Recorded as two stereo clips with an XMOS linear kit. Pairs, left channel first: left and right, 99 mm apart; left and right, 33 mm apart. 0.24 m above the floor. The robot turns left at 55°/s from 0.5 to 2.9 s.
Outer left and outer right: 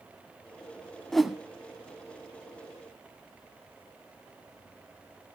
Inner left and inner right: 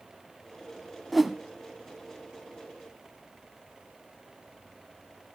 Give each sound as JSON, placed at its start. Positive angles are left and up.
{"t": 1.1, "sound": "a whoosh", "side_deg": 5, "distance_m": 0.9}